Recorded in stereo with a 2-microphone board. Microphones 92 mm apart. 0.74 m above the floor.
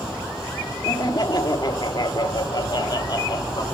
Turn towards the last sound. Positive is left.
turn(degrees=50)  # may be behind; listen again after turning